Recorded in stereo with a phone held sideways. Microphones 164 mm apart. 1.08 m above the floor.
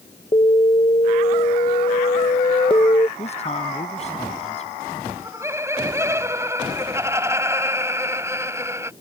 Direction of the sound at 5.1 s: 15° right (ahead or behind).